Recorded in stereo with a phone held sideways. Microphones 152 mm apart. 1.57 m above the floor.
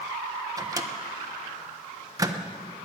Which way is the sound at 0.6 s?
25° right (ahead or behind).